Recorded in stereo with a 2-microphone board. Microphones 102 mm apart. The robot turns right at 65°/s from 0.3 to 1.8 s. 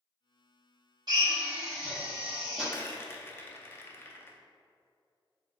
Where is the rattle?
25° left (ahead or behind), 0.5 m.